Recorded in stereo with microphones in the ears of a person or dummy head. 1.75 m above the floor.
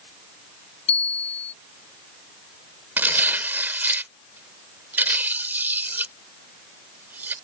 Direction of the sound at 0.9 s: 35° left (ahead or behind).